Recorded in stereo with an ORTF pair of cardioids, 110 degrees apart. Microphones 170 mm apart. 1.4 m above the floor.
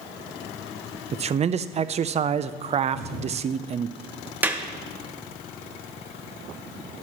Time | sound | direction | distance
1.1 | a man speaking | 40° right | 0.5 m
2.9 | a thud | 65° right | 3.5 m
4.4 | a clap | 10° right | 1.0 m